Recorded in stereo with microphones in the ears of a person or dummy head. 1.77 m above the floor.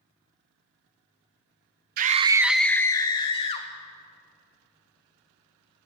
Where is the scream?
50° right (ahead or behind), 0.5 m; by 3.7 s 30° left (ahead or behind), 1.4 m.